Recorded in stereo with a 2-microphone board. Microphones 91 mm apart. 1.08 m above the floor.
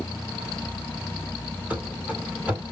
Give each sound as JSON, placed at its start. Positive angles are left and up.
{"t": 1.7, "sound": "running footsteps", "side_deg": -15, "distance_m": 1.5}